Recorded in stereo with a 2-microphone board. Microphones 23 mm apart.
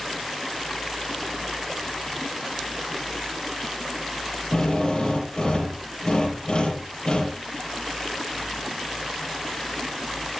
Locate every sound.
4.5 s a drill: 50° left (ahead or behind), 5.5 m